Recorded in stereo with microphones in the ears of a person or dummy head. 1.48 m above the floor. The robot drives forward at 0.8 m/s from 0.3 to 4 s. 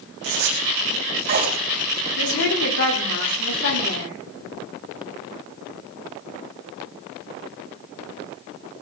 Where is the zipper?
55° right (ahead or behind), 2.5 m; by 1.6 s 45° right (ahead or behind), 3.5 m.